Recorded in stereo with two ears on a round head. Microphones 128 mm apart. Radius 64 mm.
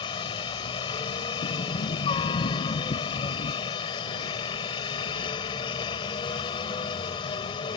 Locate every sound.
0.0 s a helicopter: 35° left (ahead or behind)
1.4 s a sliding door: 65° left (ahead or behind)